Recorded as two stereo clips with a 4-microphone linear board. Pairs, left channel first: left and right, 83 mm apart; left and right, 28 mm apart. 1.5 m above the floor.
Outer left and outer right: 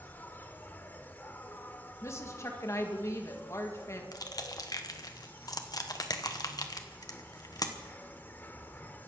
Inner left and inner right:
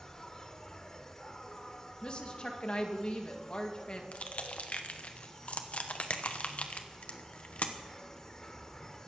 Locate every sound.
0.0 s an insect: 25° left (ahead or behind), 1.2 m
2.0 s a woman speaking: 35° left (ahead or behind), 2.0 m
4.1 s crushing: 50° left (ahead or behind), 1.2 m